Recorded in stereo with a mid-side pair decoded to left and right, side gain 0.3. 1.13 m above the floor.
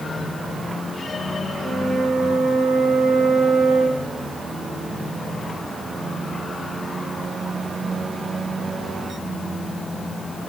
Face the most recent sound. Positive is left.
turn(degrees=-70)